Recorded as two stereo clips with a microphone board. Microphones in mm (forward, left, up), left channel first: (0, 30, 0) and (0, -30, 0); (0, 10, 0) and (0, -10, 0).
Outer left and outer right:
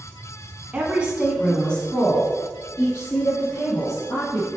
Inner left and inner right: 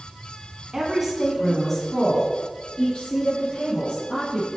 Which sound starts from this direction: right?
A woman speaking, at 0.7 s.